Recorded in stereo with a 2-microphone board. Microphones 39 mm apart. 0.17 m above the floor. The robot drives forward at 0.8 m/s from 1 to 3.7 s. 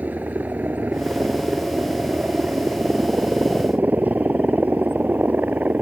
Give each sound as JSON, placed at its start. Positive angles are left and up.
{"t": 0.0, "sound": "a helicopter", "side_deg": -50}